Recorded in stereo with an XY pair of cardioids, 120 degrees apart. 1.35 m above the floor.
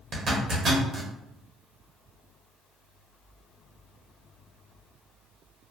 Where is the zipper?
45° right, 0.9 m.